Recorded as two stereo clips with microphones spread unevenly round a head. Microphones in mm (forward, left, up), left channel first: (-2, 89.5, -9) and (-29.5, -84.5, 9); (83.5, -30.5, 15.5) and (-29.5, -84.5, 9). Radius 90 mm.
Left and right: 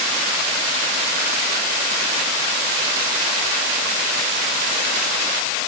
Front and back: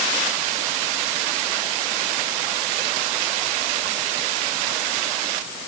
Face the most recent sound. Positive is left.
No sound to turn to.